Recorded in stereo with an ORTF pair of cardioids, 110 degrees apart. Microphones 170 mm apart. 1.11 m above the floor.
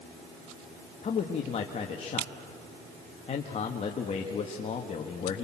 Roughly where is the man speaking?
Ahead left.